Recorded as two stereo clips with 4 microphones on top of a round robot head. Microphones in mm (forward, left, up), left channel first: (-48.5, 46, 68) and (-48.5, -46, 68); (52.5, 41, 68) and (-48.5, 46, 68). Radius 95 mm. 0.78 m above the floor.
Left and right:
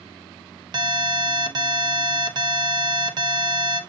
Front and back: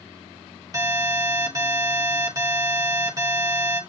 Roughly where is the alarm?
Behind right.